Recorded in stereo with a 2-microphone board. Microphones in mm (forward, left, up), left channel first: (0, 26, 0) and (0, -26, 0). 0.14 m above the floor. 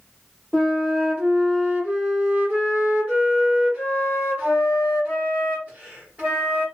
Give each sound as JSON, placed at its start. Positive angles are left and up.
{"t": 0.5, "sound": "a flute", "side_deg": -25, "distance_m": 1.4}